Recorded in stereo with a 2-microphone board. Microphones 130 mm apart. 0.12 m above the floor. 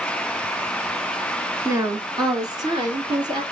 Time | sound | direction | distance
1.6 | a woman speaking | 25° right (ahead or behind) | 1.3 m